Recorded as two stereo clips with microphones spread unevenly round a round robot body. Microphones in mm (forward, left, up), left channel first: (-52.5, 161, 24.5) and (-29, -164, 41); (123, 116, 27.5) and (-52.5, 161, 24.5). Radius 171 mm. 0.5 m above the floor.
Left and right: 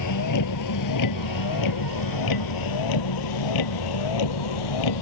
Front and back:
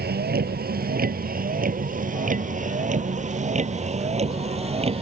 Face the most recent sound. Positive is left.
turn(degrees=105)